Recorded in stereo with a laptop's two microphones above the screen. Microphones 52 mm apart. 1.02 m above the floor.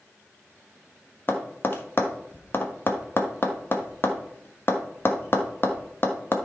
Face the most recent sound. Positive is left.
turn(degrees=45)  # may be behind; listen again after turning